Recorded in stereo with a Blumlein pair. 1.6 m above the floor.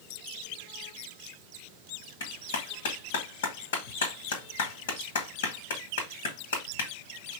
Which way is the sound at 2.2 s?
50° left.